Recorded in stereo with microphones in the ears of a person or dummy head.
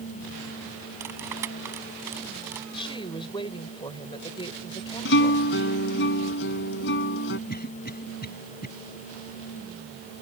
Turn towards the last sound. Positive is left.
turn(degrees=45)  # may be behind; listen again after turning